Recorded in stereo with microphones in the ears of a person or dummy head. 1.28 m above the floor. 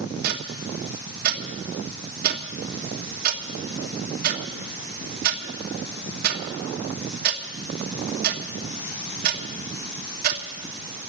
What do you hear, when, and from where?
0.2 s ticking: 55° right (ahead or behind), 1.4 m